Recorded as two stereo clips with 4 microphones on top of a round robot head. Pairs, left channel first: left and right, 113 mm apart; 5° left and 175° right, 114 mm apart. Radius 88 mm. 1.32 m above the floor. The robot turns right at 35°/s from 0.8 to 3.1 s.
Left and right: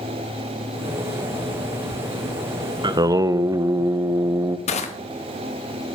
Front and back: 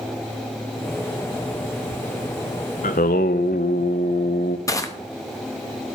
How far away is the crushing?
About 1.3 m.